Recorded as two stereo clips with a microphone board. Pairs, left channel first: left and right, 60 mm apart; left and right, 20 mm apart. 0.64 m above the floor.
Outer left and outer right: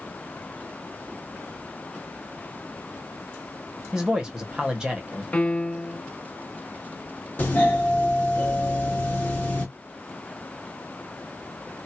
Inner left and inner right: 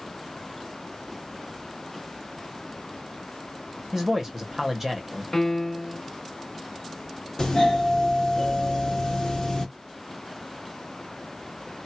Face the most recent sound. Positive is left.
turn(degrees=30)  # may be behind; listen again after turning